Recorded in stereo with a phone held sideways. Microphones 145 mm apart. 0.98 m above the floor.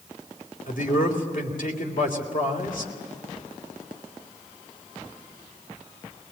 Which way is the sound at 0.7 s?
65° left (ahead or behind).